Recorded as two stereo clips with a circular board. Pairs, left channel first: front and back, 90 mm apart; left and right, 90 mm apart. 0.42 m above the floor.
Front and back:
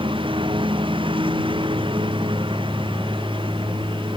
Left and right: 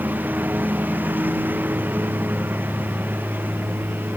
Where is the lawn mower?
160° right.